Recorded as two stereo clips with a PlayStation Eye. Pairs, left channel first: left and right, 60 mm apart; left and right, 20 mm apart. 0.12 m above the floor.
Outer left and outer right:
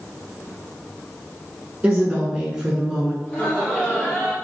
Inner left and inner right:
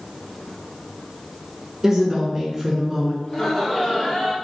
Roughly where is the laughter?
Left.